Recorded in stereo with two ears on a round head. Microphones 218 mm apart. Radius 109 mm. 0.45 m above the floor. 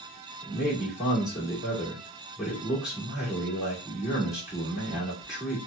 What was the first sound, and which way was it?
A man speaking, centre (ahead or behind).